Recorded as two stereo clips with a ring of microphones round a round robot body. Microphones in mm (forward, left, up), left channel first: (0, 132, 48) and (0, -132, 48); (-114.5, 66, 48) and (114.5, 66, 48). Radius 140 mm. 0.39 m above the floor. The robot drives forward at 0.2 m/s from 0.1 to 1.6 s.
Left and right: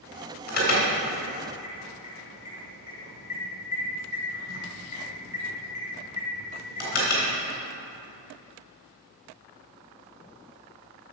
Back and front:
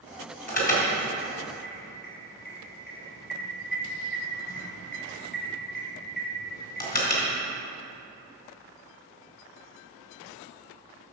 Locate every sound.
0.5 s an alarm: 135° left, 3 m; by 7.3 s 140° left, 3 m